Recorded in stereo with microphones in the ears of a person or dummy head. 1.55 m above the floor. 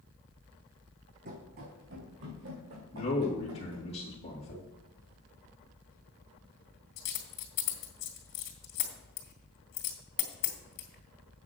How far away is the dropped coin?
About 2.5 m.